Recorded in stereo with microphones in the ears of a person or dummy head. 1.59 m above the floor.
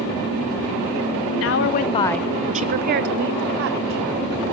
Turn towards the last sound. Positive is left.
turn(degrees=-65)  # may be behind; listen again after turning